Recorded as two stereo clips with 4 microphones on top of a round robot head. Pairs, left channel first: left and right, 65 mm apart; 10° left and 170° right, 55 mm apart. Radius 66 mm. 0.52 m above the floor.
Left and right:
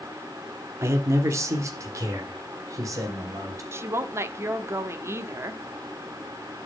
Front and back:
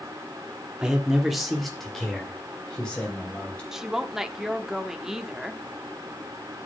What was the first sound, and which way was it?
A man speaking, 100° right.